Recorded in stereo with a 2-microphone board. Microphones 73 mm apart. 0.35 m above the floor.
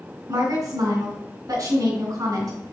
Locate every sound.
0.3 s a woman speaking: 65° right (ahead or behind), 3 m